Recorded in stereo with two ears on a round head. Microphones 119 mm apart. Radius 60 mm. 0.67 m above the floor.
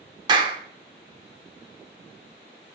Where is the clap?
35° right (ahead or behind), 1.8 m.